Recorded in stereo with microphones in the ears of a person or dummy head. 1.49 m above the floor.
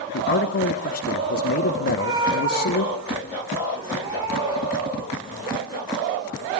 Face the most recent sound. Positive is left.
turn(degrees=-25)  # may be behind; listen again after turning